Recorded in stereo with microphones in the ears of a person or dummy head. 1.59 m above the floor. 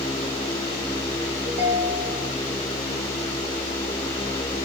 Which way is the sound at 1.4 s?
80° right.